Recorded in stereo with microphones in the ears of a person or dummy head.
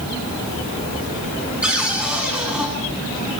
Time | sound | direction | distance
1.6 | a cupboard door | 5° right (ahead or behind) | 7 m